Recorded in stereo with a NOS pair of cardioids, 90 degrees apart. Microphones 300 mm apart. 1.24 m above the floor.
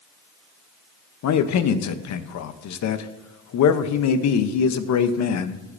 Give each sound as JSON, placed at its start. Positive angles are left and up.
{"t": 1.2, "sound": "a man speaking", "azimuth_deg": 60, "distance_m": 0.9}